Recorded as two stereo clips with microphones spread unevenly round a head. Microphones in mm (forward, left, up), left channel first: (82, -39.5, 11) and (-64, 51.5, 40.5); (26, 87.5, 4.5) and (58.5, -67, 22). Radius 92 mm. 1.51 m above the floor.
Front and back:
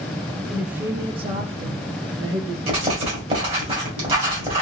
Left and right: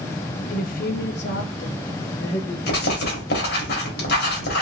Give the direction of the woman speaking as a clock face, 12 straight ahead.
10 o'clock.